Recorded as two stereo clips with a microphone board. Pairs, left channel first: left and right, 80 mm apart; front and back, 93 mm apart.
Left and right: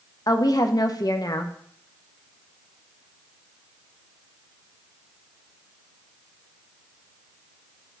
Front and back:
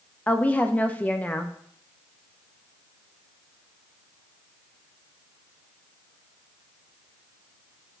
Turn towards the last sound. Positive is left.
turn(degrees=70)